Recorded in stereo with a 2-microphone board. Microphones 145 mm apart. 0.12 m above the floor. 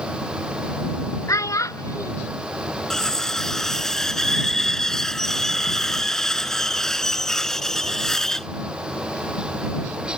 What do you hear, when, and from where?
1.3 s a child speaking: 25° left (ahead or behind)
2.9 s cutlery clinking: 5° left (ahead or behind)